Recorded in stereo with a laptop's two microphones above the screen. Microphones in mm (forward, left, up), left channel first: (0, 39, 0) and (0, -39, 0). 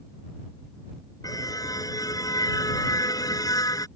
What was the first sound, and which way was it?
A car horn, 50° left (ahead or behind).